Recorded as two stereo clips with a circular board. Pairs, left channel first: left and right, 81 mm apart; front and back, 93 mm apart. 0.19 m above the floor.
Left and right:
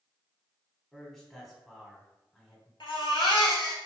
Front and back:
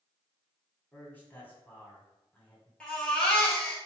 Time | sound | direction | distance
0.9 | a man speaking | 10° left | 1.2 m
2.8 | a baby crying | 80° left | 1.1 m